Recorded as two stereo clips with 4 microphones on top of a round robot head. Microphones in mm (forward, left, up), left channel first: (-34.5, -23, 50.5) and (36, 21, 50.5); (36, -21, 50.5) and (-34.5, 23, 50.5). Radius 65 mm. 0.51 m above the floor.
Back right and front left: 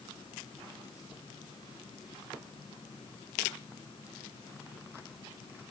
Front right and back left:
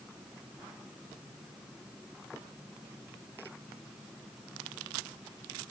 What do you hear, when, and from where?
Only background noise.